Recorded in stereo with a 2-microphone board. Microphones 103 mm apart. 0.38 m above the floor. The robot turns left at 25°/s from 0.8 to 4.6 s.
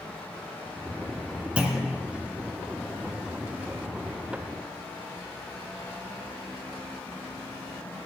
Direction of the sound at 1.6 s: 10° right (ahead or behind).